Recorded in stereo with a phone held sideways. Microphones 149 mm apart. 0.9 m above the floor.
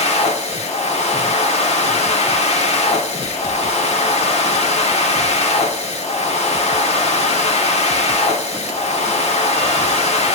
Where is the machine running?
50° left (ahead or behind), 1.4 m.